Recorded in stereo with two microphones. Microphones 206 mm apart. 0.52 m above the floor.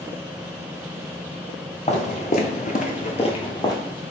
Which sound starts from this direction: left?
Footsteps, at 1.9 s.